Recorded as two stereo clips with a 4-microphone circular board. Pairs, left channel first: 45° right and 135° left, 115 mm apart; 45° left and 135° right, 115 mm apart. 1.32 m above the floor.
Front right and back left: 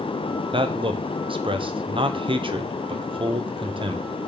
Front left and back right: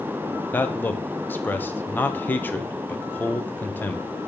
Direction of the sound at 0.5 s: 115° left.